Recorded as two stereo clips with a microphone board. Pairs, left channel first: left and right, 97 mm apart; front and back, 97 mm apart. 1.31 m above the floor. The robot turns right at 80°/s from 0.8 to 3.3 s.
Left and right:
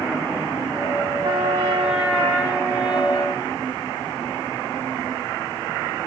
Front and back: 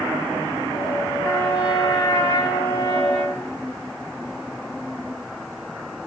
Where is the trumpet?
70° right, 3.5 m; by 3.5 s 95° left, 3.5 m.